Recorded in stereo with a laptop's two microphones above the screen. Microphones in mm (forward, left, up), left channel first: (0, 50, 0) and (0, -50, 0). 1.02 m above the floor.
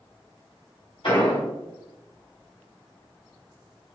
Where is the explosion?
60° left (ahead or behind), 2.0 m.